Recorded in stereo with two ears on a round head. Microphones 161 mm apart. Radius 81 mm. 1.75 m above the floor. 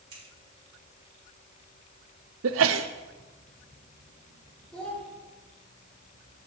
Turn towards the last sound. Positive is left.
turn(degrees=5)  # may be behind; listen again after turning